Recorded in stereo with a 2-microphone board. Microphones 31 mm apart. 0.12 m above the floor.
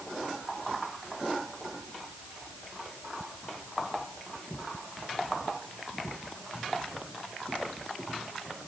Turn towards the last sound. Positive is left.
No sound to turn to.